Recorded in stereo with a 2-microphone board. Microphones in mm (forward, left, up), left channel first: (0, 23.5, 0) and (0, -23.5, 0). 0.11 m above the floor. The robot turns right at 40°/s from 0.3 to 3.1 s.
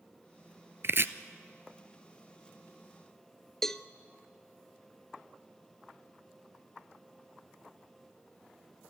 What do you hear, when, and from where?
0.8 s chopping: 55° right (ahead or behind), 0.6 m; by 1.1 s 50° right (ahead or behind), 0.6 m
3.6 s a cowbell: 5° left (ahead or behind), 0.5 m